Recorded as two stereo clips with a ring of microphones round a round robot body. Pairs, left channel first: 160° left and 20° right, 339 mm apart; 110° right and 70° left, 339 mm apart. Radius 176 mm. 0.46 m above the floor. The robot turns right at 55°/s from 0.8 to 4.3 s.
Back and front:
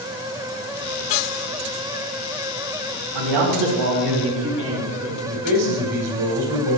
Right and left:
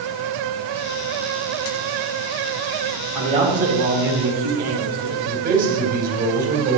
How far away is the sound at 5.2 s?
About 3.5 m.